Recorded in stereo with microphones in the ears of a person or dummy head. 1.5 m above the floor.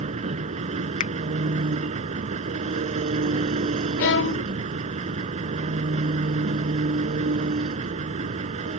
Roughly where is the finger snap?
Left.